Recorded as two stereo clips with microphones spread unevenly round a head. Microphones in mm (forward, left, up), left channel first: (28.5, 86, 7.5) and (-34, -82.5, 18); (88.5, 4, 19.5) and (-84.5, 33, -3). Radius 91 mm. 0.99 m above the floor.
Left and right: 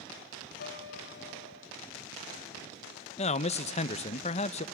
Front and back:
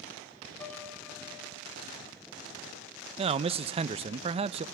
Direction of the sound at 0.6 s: 60° left.